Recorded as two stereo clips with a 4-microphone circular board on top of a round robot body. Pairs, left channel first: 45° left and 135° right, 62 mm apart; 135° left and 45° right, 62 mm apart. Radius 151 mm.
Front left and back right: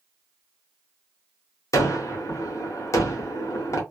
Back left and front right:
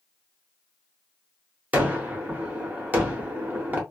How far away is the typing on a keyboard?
I don't hear typing on a keyboard.